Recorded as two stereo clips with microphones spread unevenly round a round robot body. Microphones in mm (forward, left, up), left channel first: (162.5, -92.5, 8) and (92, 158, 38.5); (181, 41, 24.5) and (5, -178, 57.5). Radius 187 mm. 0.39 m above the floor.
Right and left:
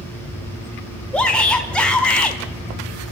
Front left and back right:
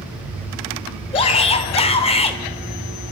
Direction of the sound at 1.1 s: Straight ahead.